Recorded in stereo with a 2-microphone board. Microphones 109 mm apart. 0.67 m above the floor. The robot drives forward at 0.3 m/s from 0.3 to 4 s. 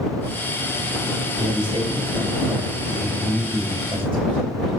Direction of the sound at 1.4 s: 65° right (ahead or behind).